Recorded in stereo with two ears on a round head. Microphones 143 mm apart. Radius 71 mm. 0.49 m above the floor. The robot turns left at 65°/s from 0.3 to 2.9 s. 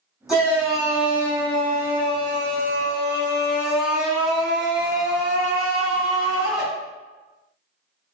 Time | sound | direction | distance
0.3 | a shout | 5° right | 1.6 m